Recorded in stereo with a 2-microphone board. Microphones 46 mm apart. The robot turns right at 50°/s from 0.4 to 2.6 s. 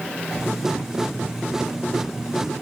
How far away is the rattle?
I don't hear a rattle.